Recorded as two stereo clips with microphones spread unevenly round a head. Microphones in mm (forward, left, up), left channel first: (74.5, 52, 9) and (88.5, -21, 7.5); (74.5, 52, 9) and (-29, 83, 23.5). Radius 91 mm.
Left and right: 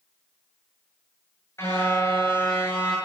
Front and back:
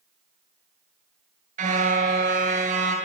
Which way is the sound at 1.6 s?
Straight behind.